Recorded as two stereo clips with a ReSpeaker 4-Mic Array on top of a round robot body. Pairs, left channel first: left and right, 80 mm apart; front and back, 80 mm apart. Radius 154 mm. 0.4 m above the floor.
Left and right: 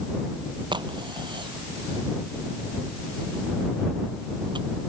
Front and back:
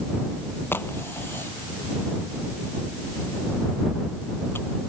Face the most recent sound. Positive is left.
turn(degrees=-65)